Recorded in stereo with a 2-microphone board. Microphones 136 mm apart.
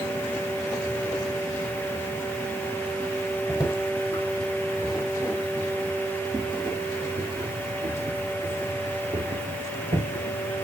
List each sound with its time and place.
3.5 s footsteps: 20° left (ahead or behind), 3.5 m; by 10.4 s 75° right (ahead or behind), 5.5 m